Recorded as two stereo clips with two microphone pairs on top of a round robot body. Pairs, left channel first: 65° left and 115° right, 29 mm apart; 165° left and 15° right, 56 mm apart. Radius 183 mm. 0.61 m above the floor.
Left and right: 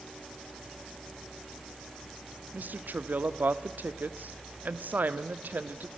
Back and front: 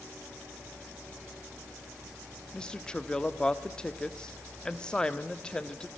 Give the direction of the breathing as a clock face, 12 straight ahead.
No breathing in this recording.